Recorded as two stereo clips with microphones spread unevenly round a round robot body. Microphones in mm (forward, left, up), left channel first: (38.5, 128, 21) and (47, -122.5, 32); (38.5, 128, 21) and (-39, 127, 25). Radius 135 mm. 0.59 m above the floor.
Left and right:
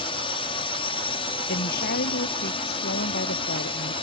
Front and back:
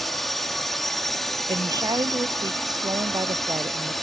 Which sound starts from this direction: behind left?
A woman speaking, at 1.5 s.